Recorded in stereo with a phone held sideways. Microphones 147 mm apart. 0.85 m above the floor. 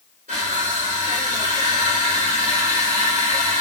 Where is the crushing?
70° right (ahead or behind), 3 m.